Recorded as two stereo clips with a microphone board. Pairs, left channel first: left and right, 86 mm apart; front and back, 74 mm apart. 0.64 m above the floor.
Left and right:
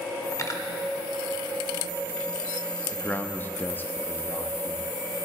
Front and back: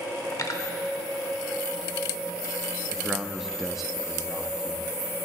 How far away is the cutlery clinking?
About 0.9 m.